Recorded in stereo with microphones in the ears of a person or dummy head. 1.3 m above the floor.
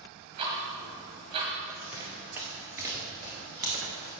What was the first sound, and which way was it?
Ticking, 35° right (ahead or behind).